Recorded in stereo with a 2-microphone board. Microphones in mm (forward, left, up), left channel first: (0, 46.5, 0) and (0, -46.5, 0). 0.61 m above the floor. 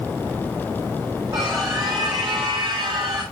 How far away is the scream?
About 5 m.